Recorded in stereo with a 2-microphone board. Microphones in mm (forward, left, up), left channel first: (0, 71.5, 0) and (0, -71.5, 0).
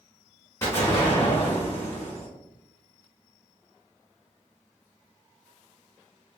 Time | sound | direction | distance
0.6 | an explosion | 20° left (ahead or behind) | 1.1 m